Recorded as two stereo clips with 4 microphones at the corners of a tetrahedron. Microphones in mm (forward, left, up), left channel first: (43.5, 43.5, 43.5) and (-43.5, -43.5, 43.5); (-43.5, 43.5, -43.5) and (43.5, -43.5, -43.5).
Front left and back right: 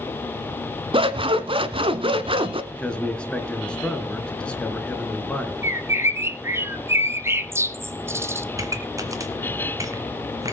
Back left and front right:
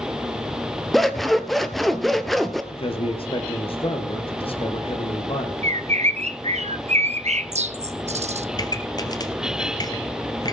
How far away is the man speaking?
About 2.5 m.